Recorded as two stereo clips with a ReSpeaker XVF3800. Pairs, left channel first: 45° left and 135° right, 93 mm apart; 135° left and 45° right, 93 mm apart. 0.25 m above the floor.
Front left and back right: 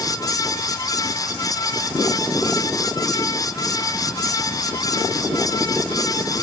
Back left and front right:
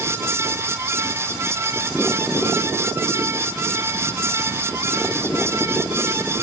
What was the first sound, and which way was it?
Only background noise.